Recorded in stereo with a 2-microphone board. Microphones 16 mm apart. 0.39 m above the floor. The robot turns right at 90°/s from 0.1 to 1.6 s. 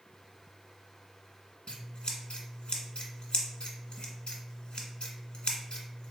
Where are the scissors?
65° left (ahead or behind), 1.0 m.